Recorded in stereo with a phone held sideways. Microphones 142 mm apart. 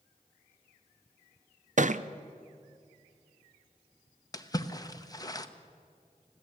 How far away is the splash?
About 0.9 m.